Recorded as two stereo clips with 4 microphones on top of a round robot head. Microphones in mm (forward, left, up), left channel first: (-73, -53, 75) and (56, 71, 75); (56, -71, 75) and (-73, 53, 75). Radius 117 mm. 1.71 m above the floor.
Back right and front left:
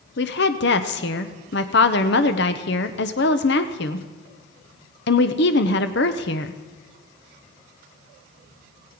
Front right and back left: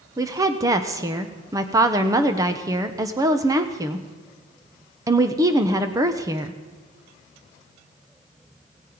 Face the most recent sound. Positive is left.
turn(degrees=-155)